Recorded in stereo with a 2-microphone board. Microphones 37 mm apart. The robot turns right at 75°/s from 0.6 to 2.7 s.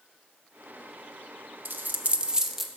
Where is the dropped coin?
70° right (ahead or behind), 0.6 m; by 2.7 s centre (ahead or behind), 0.6 m.